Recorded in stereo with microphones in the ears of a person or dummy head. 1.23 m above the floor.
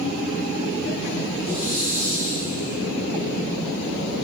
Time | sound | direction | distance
1.4 | a hiss | 70° left (ahead or behind) | 2 m